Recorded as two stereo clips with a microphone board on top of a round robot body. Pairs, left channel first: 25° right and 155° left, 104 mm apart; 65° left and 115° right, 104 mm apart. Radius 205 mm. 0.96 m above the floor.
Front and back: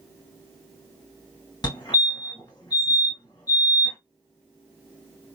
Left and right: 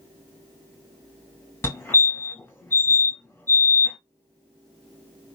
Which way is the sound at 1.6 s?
5° left.